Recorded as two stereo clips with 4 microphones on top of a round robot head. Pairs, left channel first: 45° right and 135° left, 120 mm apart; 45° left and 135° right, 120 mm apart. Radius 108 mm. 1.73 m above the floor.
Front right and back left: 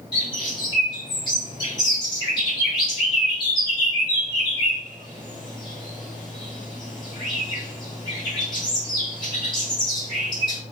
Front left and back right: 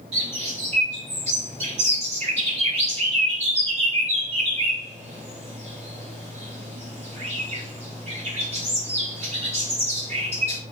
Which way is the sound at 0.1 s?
100° right.